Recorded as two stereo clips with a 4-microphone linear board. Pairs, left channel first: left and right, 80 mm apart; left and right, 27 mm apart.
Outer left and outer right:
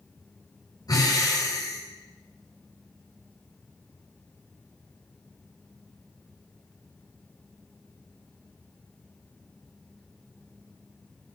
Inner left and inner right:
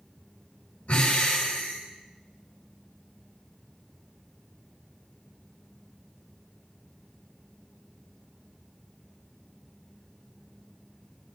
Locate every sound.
0.9 s breathing: 60° left (ahead or behind), 10 m